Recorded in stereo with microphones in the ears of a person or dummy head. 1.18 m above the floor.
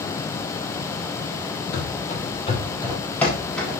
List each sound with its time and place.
1.7 s running footsteps: 50° left (ahead or behind), 2 m; by 3.8 s 5° right (ahead or behind), 3.5 m